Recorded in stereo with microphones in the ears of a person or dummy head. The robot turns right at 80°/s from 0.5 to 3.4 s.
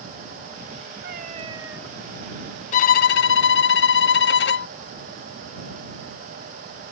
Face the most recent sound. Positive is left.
turn(degrees=110)